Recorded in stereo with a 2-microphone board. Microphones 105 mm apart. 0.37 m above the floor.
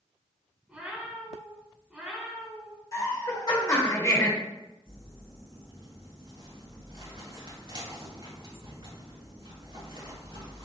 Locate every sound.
0.7 s a cat meowing: 10° right (ahead or behind), 0.9 m
2.9 s laughter: 35° left (ahead or behind), 1.1 m
4.8 s crumpling: 55° right (ahead or behind), 1.7 m